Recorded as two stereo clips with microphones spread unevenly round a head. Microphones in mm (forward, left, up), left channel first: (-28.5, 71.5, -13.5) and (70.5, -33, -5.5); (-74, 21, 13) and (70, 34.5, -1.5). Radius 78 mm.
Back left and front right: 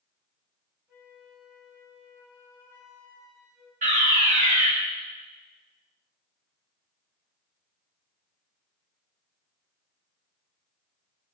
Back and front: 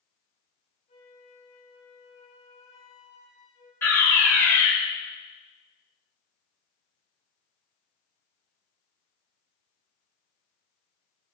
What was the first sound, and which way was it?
A flute, 120° right.